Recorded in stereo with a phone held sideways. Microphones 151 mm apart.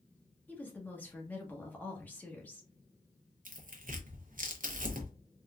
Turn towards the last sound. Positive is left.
turn(degrees=-65)  # may be behind; listen again after turning